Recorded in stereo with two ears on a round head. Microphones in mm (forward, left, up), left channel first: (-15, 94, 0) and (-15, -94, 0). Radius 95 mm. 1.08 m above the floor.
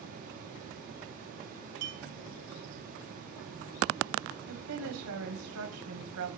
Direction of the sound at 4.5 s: 75° right (ahead or behind).